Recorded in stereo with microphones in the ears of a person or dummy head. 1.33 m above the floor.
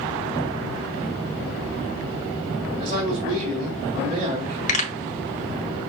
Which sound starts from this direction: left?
A pop, at 4.7 s.